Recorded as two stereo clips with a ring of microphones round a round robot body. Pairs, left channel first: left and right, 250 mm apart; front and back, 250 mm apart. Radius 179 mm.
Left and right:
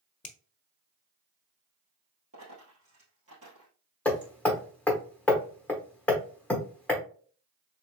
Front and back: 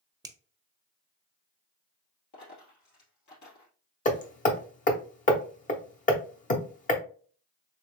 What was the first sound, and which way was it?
A finger snap, 115° left.